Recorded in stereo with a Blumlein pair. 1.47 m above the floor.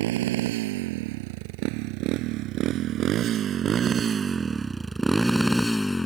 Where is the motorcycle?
55° right; by 6.1 s 10° left.